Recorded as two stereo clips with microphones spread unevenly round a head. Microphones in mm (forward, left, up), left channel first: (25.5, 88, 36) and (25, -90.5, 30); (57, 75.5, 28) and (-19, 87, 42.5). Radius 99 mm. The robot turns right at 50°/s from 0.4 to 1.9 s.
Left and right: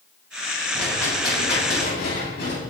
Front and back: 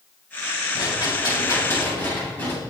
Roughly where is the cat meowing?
I don't hear a cat meowing.